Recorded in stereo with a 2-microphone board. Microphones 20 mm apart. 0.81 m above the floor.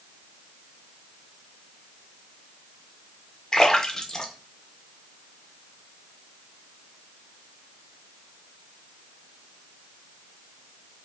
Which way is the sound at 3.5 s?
25° left (ahead or behind).